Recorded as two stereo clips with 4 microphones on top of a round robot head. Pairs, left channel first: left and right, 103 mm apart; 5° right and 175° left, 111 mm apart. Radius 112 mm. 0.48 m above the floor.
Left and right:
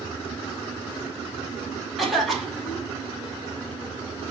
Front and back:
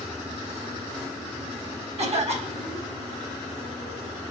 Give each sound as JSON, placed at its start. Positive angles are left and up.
{"t": 2.0, "sound": "a cough", "azimuth_deg": 180, "distance_m": 2.5}